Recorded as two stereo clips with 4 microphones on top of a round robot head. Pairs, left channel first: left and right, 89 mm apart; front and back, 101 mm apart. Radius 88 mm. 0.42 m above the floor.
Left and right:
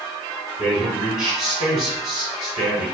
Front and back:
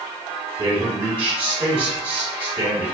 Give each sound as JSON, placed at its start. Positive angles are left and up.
{"t": 0.6, "sound": "a man speaking", "azimuth_deg": -165, "distance_m": 1.6}